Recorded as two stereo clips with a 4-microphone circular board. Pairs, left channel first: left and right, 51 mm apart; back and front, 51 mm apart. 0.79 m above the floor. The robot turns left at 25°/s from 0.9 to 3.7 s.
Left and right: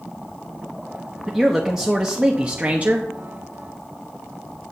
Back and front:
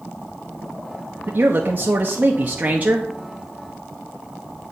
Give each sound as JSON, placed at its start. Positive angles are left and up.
{"t": 1.3, "sound": "a man speaking", "azimuth_deg": -5, "distance_m": 0.8}